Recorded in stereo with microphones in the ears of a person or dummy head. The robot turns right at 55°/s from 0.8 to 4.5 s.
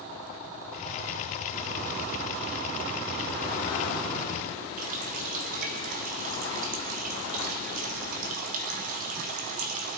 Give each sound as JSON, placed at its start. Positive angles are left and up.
{"t": 4.8, "sound": "a running tap", "side_deg": -40, "distance_m": 0.7}